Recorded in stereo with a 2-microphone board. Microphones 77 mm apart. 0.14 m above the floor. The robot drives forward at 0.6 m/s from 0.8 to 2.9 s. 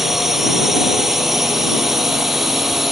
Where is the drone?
5° right (ahead or behind).